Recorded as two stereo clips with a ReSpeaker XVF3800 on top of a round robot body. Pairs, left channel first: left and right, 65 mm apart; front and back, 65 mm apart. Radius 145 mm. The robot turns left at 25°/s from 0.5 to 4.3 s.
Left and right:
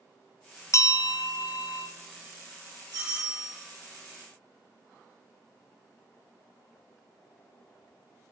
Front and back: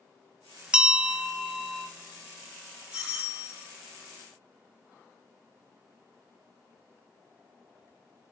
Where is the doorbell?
105° right, 3 m; by 3.6 s 120° right, 3 m.